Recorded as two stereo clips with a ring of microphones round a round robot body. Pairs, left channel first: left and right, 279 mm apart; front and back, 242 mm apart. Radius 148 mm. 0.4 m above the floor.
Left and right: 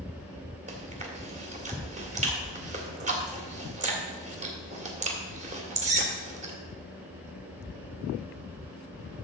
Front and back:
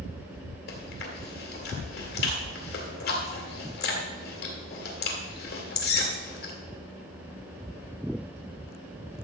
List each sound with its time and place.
0.7 s chewing: 35° right, 2 m